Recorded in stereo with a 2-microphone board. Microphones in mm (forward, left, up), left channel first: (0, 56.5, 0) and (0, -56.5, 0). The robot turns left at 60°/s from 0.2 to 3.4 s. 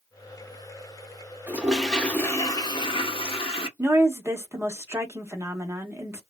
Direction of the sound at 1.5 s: 160° right.